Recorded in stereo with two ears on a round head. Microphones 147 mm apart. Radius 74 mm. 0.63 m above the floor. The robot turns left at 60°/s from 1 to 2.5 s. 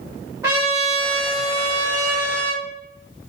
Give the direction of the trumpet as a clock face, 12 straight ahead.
1 o'clock.